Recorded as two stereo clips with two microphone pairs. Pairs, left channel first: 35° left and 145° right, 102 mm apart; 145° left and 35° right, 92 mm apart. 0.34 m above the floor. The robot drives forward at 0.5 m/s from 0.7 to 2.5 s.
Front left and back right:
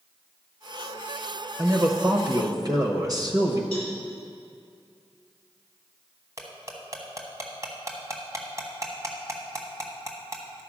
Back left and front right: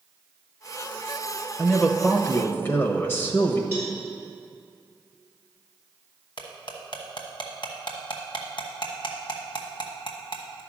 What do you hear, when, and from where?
1.6 s a man speaking: 145° right, 0.8 m; by 3.6 s 165° right, 1.0 m
3.7 s a cowbell: 140° right, 3 m
6.4 s cutlery clinking: 160° left, 1.3 m